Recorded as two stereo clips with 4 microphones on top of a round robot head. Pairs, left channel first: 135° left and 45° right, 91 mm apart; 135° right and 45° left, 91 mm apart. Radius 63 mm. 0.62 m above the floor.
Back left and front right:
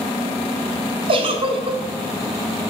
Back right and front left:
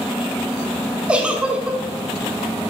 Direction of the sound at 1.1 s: 30° right.